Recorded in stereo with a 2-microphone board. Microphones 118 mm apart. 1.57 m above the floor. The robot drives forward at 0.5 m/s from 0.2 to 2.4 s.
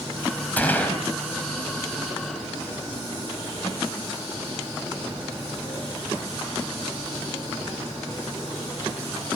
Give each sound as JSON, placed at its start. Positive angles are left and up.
{"t": 0.6, "sound": "a gunshot", "side_deg": 15, "distance_m": 4.0}